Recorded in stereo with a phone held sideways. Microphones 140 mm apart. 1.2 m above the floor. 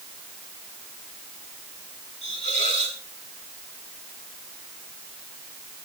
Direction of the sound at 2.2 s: 60° left (ahead or behind).